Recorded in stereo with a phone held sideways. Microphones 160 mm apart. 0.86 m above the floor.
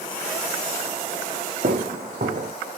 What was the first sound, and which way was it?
Footsteps, 65° right (ahead or behind).